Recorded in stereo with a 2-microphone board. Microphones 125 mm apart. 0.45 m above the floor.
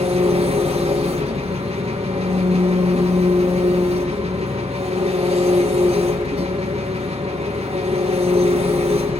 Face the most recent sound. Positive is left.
turn(degrees=-55)  # may be behind; listen again after turning